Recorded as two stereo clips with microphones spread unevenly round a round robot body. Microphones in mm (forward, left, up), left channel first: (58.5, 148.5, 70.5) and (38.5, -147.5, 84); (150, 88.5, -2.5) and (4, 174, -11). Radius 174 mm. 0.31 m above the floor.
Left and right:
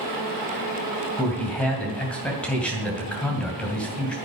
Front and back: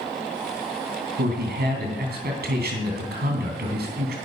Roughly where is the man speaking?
Behind.